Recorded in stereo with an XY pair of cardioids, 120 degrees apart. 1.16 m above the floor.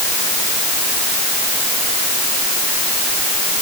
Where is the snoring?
No snoring in this recording.